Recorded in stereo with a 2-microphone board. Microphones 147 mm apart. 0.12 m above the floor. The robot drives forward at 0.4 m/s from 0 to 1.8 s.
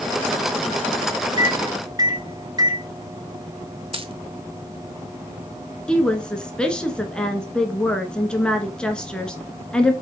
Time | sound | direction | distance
1.4 | a microwave | 30° right (ahead or behind) | 1.1 m
3.9 | a dropped coin | 35° right (ahead or behind) | 0.9 m
5.9 | a woman speaking | 5° left (ahead or behind) | 1.4 m